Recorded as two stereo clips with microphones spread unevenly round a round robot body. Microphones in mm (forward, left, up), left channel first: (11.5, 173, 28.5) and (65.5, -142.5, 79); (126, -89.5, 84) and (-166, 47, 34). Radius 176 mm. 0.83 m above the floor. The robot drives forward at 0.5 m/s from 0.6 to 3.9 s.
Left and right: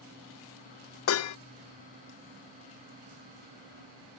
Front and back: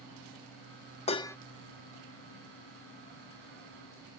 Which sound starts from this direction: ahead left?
Dishes clattering, at 1.1 s.